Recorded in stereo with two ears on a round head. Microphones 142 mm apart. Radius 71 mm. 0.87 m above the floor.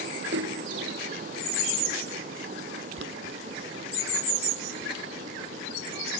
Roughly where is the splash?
Right.